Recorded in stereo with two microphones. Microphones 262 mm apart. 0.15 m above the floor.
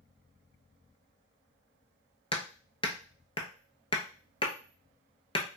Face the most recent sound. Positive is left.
turn(degrees=20)  # may be behind; listen again after turning